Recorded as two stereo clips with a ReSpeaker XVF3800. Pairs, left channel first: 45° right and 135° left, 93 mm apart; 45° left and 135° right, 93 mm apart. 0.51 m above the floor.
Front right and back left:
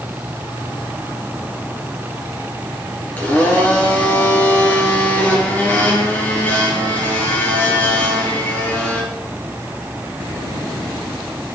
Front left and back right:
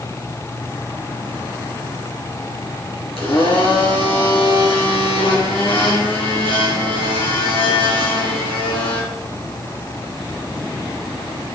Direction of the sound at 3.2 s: 25° left.